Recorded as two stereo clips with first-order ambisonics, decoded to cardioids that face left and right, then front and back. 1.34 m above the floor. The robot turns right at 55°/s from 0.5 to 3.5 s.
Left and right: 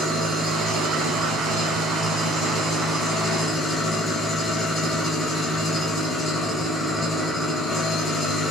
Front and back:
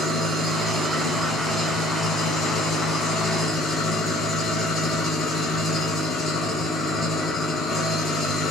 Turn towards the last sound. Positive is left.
turn(degrees=25)